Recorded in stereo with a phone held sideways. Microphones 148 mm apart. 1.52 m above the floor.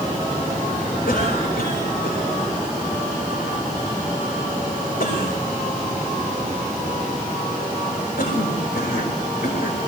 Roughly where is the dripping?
I don't hear dripping.